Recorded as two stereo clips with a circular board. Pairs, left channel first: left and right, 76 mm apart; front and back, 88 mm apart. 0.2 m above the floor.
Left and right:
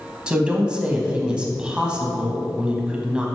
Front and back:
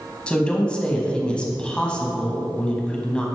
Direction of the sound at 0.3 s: 50° right.